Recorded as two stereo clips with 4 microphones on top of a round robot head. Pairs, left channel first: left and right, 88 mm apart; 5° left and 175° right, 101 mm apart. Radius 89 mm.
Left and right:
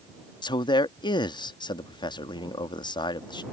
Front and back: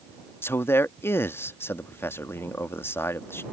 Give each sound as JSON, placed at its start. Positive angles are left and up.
{"t": 0.4, "sound": "a man speaking", "azimuth_deg": 70}